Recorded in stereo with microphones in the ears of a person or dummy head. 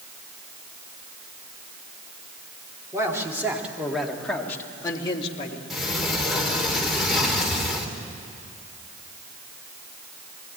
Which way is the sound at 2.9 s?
20° right (ahead or behind).